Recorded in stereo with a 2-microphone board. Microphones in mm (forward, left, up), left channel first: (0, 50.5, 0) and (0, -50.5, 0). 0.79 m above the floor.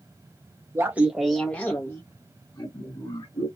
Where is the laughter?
25° right (ahead or behind), 0.5 m; by 3.5 s 45° left (ahead or behind), 1.4 m.